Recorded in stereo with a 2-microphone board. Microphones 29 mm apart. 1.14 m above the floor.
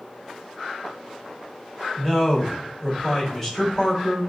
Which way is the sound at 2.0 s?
5° left (ahead or behind).